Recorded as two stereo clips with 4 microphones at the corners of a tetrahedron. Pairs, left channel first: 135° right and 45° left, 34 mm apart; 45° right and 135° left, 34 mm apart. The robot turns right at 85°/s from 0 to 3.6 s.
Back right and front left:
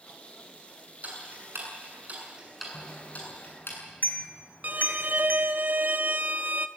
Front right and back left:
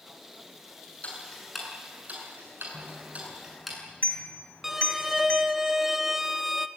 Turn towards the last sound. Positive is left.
turn(degrees=55)